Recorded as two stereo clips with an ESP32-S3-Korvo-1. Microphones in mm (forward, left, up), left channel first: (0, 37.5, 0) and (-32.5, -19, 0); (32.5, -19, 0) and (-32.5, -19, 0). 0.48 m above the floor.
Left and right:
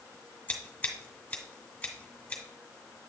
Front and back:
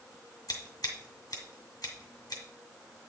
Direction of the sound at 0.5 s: 10° right.